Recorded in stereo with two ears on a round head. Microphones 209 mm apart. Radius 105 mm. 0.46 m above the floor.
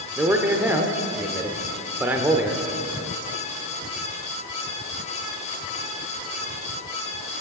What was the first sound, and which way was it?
A man speaking, 10° right (ahead or behind).